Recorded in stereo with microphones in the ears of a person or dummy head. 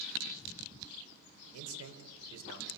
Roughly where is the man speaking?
Right.